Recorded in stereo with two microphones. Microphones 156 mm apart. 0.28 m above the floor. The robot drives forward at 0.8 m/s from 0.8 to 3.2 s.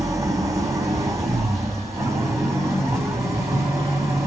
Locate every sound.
0.0 s an engine running: 20° right (ahead or behind), 9.5 m; by 4.3 s 15° right (ahead or behind), 11.5 m